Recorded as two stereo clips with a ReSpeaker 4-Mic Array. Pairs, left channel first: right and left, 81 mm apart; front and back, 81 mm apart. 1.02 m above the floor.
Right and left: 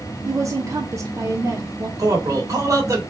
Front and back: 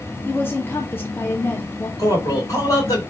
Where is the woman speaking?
55° left, 1.0 m.